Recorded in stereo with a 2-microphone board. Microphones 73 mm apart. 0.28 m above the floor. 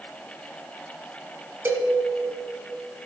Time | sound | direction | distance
1.6 | a cowbell | 35° right (ahead or behind) | 1.3 m